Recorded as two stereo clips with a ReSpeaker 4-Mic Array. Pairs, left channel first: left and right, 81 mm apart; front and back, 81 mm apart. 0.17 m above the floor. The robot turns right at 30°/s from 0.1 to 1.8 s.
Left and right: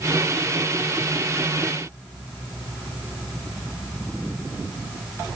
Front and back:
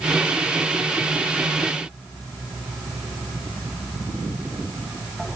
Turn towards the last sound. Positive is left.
No sound to turn to.